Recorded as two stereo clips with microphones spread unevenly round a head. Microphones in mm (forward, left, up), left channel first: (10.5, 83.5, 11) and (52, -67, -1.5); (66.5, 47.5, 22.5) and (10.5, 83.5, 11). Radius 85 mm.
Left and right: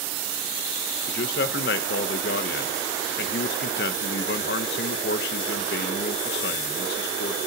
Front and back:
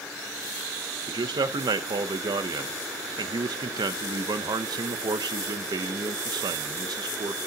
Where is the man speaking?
140° left, 0.8 m.